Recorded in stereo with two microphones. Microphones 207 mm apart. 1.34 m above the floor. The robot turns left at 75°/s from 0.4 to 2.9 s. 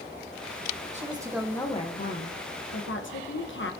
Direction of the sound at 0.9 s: 145° right.